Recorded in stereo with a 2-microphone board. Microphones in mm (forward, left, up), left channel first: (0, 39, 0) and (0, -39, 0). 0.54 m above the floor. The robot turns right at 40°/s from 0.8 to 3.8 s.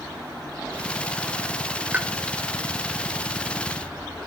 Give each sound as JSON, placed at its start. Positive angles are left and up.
{"t": 1.9, "sound": "a pop", "side_deg": -20, "distance_m": 0.8}